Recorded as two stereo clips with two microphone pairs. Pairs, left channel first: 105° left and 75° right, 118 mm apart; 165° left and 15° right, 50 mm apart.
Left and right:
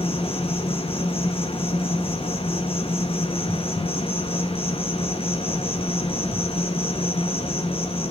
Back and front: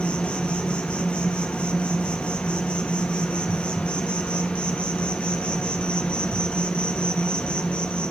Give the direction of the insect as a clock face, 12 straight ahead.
8 o'clock.